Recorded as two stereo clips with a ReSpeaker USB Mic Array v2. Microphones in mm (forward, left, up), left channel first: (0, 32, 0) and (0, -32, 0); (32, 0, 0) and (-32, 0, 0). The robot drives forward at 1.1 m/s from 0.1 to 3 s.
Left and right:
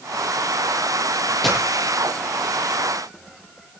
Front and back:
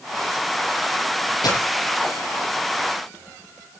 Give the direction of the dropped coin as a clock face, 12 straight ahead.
12 o'clock.